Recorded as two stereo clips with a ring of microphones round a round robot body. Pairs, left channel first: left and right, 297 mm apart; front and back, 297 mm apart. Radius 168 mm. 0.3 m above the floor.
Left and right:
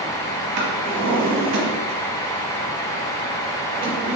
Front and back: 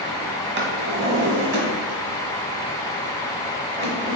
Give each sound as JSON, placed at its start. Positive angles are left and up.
{"t": 0.6, "sound": "a drawer", "azimuth_deg": -125, "distance_m": 1.2}